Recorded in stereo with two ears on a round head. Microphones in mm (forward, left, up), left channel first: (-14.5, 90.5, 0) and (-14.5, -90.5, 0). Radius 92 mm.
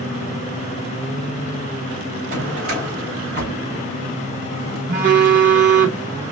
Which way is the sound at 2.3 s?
45° right (ahead or behind).